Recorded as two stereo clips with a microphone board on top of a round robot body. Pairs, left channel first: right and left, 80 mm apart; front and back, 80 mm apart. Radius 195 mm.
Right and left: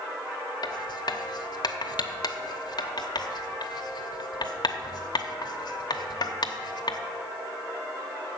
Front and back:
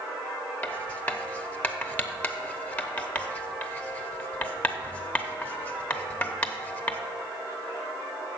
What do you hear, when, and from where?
0.6 s writing: 70° right, 0.9 m